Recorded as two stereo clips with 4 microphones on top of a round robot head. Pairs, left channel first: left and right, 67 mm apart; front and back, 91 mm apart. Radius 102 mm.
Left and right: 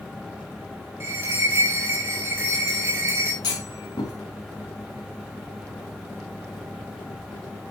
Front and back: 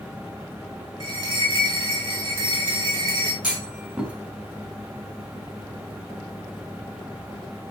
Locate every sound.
1.0 s a bell: 145° right, 4 m
3.4 s a clunk: 110° left, 4 m